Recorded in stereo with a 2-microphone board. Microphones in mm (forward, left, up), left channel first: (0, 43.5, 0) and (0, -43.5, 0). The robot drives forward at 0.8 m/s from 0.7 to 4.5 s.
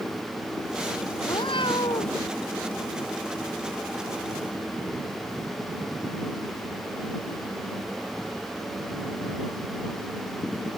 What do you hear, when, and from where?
1.2 s a cat meowing: 75° left (ahead or behind); by 2.2 s 70° left (ahead or behind)